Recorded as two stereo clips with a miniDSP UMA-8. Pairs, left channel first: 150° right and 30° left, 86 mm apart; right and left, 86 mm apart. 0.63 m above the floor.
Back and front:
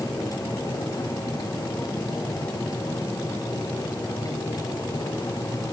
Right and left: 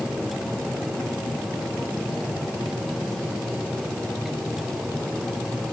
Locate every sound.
Only background noise.